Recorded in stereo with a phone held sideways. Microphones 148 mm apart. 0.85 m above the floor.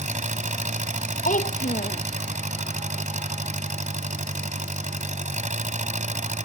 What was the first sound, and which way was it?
An engine running, 55° right (ahead or behind).